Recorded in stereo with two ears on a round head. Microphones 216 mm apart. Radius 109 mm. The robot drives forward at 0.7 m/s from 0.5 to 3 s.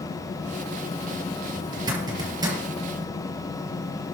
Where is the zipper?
20° right (ahead or behind), 6 m; by 2.6 s 15° right (ahead or behind), 6.5 m.